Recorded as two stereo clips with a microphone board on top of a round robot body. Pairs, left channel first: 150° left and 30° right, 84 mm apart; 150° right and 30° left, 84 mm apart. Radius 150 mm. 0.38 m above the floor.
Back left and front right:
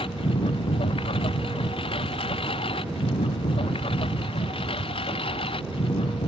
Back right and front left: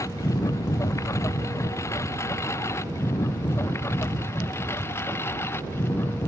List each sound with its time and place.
0.0 s a lawn mower: 155° left; by 6.3 s 145° left